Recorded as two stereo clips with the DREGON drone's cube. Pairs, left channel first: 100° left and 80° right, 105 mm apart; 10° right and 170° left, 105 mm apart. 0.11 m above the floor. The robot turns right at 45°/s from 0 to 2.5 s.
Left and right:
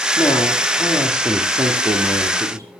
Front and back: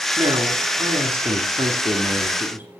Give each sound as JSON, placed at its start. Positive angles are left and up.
{"t": 0.2, "sound": "a man speaking", "azimuth_deg": 130, "distance_m": 2.5}